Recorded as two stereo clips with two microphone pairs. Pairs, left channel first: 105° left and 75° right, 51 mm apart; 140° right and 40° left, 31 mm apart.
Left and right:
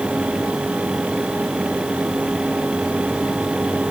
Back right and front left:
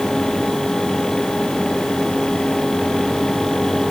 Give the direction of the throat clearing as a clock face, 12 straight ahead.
I don't hear throat clearing.